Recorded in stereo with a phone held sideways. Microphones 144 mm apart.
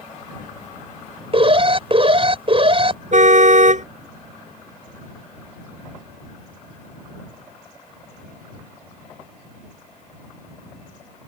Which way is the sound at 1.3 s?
40° right (ahead or behind).